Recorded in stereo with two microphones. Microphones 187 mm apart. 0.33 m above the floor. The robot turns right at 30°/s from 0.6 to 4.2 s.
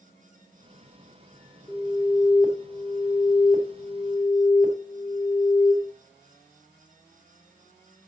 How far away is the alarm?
About 2 m.